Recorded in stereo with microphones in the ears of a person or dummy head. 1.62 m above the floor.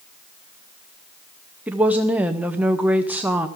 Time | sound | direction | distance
1.7 | a woman speaking | 5° right (ahead or behind) | 0.7 m